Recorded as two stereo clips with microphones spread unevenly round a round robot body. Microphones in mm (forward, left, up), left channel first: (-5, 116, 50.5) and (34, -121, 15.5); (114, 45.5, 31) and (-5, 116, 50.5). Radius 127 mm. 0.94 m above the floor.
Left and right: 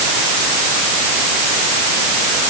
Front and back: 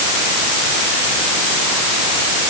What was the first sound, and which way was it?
Only background noise.